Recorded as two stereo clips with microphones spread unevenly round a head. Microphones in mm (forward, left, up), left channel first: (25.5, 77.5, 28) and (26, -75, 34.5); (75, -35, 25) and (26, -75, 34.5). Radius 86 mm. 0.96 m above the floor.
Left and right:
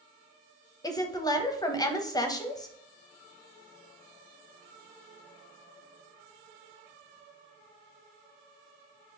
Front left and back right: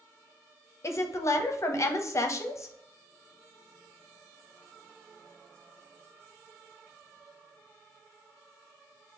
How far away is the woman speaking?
About 0.7 m.